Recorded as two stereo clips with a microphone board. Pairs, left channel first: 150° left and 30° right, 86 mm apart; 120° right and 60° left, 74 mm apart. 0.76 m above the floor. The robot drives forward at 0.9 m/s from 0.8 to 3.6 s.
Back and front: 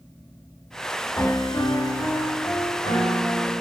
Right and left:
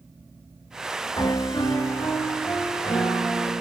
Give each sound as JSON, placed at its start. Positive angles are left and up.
{"t": 1.2, "sound": "a piano", "azimuth_deg": -150, "distance_m": 0.6}